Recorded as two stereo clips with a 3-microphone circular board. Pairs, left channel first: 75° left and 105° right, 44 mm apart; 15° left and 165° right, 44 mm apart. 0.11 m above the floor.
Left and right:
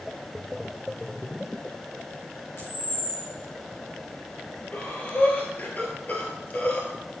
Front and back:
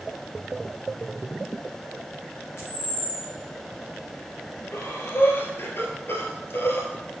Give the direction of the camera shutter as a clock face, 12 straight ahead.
10 o'clock.